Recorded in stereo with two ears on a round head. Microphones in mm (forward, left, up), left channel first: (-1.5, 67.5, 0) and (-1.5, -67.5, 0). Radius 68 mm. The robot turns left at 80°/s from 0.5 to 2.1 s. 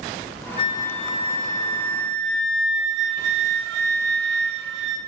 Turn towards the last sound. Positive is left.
turn(degrees=-80)